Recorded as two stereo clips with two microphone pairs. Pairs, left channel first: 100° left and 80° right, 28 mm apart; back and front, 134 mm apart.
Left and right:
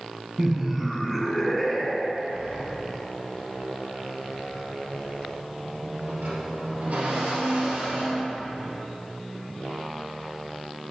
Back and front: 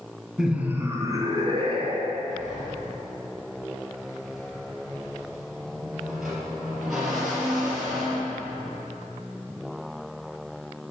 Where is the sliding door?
85° right, 3 m.